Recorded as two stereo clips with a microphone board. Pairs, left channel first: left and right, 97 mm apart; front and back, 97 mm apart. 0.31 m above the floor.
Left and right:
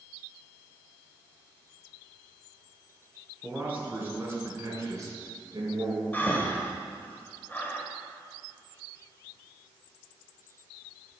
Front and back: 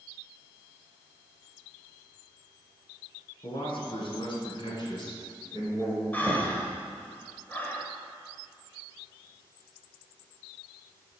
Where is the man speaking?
15° right, 3 m; by 6.0 s 55° right, 2.5 m.